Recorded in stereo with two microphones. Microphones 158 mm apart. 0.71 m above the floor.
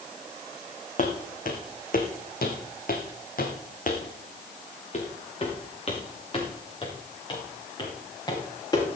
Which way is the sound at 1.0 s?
55° left (ahead or behind).